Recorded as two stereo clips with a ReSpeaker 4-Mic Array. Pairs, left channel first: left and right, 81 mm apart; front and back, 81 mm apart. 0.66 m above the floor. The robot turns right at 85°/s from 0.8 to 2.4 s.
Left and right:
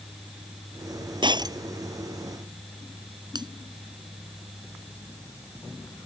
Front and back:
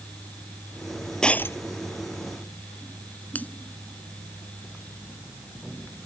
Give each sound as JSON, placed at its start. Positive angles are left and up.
{"t": 1.2, "sound": "breaking glass", "azimuth_deg": -80}
{"t": 3.4, "sound": "a finger snap", "azimuth_deg": -70}